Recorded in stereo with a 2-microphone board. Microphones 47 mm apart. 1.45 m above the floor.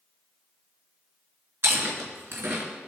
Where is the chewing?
60° right (ahead or behind), 3 m.